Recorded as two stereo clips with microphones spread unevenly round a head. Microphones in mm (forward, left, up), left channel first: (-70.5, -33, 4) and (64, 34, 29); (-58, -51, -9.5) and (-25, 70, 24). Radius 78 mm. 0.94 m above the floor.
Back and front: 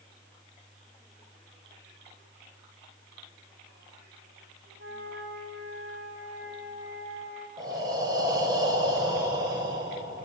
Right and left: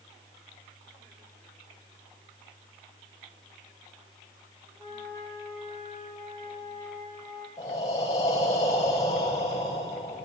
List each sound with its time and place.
4.8 s a flute: 10° right, 8.5 m
7.6 s breathing: 40° right, 4.5 m